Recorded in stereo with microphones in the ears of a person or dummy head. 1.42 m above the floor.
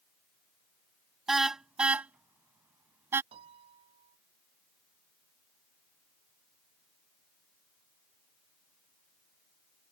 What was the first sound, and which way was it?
A car horn, centre (ahead or behind).